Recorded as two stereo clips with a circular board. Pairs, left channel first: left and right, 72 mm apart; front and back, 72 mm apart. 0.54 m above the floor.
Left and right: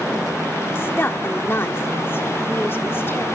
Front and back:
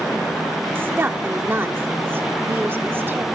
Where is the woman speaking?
135° left, 1.0 m.